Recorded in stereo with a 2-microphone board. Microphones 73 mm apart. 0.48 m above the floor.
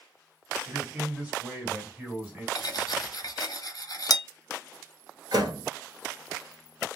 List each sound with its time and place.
0.7 s a man speaking: 15° right (ahead or behind), 2 m
2.5 s cutlery clinking: 55° left (ahead or behind), 0.6 m
5.3 s a door slam: 60° right (ahead or behind), 1.3 m